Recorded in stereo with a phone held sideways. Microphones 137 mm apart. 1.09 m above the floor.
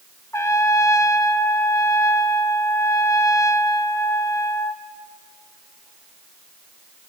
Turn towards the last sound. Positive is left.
turn(degrees=20)  # may be behind; listen again after turning